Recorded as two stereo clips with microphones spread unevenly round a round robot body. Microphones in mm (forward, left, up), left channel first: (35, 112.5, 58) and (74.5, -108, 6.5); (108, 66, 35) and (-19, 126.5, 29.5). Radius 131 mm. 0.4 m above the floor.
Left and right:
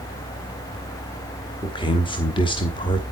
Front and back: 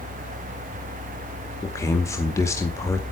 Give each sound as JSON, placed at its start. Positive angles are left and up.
{"t": 1.6, "sound": "a man speaking", "azimuth_deg": 30, "distance_m": 1.6}